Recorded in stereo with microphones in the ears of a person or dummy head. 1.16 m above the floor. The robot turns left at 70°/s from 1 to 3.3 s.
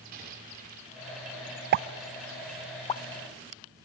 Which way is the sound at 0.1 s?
40° right (ahead or behind).